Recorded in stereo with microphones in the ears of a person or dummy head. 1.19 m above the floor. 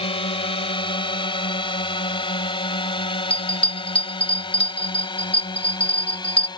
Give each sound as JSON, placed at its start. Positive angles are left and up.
{"t": 0.0, "sound": "a drone", "side_deg": 30}
{"t": 3.3, "sound": "a bell", "side_deg": 10}